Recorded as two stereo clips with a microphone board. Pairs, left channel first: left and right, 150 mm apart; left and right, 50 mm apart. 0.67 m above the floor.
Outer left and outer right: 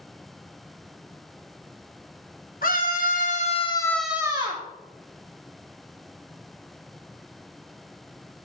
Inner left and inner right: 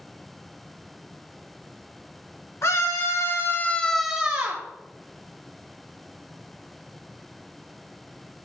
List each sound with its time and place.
2.6 s a scream: 75° left (ahead or behind), 1.9 m; by 4.6 s 40° right (ahead or behind), 1.2 m